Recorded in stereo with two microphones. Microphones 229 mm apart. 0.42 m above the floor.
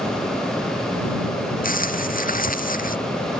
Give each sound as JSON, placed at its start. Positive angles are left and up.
{"t": 1.6, "sound": "crumpling", "side_deg": 35}